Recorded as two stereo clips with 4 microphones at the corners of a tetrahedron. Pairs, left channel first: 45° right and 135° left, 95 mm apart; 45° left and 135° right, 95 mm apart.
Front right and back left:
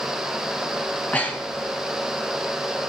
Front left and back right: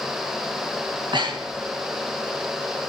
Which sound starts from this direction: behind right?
Breathing, at 0.9 s.